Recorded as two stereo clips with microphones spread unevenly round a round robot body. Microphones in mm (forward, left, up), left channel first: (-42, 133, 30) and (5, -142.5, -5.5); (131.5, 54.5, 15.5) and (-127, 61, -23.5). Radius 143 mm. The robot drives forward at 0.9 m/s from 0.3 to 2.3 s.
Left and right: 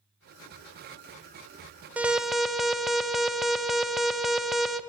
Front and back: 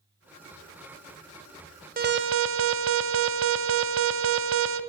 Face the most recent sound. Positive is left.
turn(degrees=-165)